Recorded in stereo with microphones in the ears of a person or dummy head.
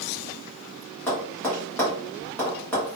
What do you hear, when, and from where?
1.1 s tapping: 5° left (ahead or behind), 1.1 m